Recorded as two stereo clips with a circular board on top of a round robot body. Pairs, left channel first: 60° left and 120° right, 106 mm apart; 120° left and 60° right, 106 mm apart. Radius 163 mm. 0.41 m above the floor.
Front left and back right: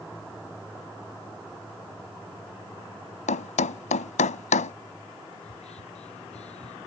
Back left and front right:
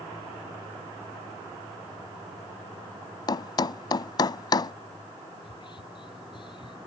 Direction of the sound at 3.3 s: 65° left.